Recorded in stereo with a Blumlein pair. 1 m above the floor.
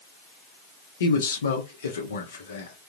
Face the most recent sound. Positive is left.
turn(degrees=65)